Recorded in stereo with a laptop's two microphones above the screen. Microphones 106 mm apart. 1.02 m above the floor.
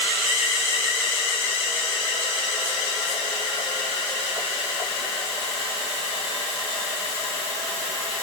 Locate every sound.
Only background noise.